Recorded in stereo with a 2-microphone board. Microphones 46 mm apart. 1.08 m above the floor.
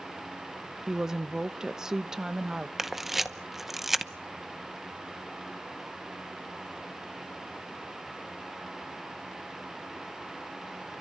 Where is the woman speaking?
15° right (ahead or behind), 0.8 m.